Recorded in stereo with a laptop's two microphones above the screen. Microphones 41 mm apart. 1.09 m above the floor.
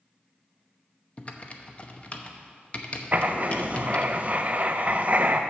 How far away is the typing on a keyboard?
About 0.8 m.